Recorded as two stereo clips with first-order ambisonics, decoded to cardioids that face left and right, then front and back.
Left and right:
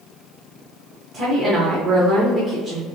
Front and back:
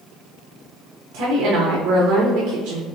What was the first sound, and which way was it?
A woman speaking, 145° right.